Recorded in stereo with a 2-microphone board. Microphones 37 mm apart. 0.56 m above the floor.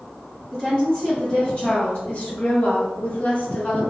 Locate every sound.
0.5 s a woman speaking: 15° left (ahead or behind), 1.4 m; by 3.9 s 35° left (ahead or behind), 1.5 m